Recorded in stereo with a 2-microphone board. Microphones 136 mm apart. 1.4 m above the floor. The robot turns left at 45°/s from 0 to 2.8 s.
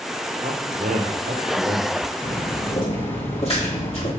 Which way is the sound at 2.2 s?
35° left (ahead or behind).